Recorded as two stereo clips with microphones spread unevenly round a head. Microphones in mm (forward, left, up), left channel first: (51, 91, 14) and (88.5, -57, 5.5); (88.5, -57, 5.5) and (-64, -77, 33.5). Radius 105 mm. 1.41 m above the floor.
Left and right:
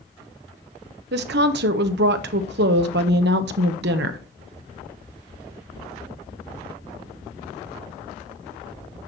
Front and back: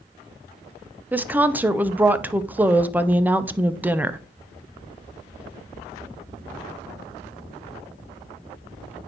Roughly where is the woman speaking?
Right.